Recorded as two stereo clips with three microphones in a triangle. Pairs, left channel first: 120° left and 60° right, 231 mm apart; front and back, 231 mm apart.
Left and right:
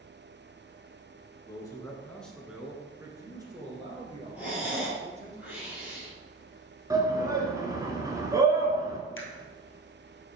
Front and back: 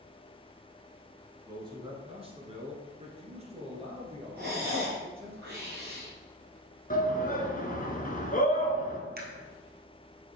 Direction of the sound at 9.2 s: 135° left.